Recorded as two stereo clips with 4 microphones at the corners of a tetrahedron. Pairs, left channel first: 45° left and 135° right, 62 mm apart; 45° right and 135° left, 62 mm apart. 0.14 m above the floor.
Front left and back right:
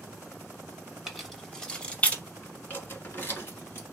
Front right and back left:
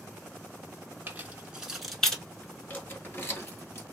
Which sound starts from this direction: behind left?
Keys jangling, at 1.1 s.